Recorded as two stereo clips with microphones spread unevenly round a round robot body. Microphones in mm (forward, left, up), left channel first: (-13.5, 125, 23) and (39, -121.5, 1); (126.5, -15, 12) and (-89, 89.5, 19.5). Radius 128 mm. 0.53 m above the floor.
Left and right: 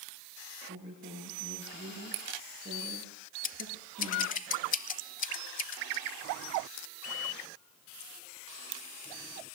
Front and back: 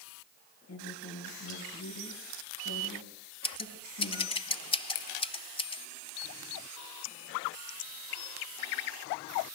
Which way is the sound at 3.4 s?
45° left.